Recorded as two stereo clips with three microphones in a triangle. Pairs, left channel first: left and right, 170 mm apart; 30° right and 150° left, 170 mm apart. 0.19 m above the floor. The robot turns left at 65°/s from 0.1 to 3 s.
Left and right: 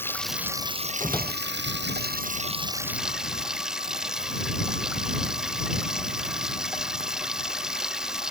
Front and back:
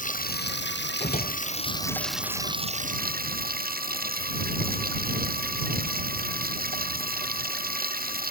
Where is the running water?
10° left; by 8.3 s 175° right.